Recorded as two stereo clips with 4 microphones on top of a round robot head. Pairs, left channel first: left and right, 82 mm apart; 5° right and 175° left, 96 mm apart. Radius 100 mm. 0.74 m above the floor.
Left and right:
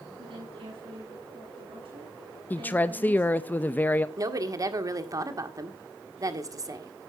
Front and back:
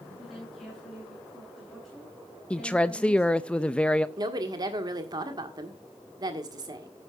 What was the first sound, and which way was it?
A woman speaking, 95° right.